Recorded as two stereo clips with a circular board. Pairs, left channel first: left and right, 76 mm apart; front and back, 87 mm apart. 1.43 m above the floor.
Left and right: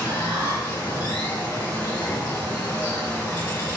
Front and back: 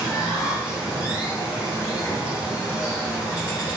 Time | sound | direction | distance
0.0 | running water | 110° left | 1.7 m